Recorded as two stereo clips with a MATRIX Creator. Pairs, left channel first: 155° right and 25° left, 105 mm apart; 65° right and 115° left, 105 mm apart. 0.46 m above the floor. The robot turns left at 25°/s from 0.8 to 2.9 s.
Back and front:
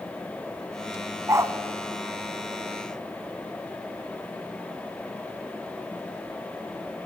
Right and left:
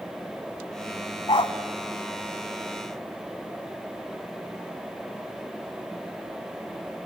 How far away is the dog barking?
About 1.1 m.